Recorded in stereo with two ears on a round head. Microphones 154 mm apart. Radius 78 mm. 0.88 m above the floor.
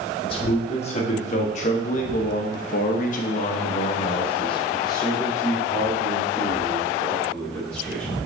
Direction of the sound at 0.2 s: 30° left (ahead or behind).